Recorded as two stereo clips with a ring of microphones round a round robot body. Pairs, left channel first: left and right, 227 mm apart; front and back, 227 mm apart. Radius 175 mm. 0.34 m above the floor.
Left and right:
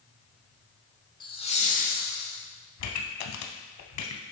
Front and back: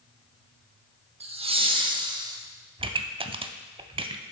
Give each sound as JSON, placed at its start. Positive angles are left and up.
{"t": 1.2, "sound": "laughter", "azimuth_deg": 140, "distance_m": 0.9}
{"t": 2.8, "sound": "a pop", "azimuth_deg": 110, "distance_m": 0.6}